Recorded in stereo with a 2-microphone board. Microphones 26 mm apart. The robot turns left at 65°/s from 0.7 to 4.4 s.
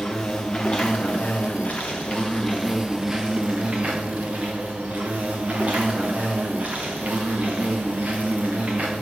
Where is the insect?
135° left, 3 m; by 9.0 s 105° right, 3 m.